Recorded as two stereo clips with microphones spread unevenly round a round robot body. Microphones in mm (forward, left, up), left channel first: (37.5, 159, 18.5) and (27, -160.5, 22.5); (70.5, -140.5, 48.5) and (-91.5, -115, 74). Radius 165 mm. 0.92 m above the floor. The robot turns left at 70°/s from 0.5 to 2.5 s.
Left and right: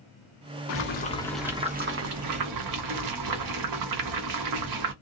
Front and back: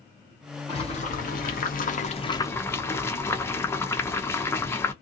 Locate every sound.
0.7 s boiling: 45° left, 0.8 m; by 4.9 s 80° right, 0.8 m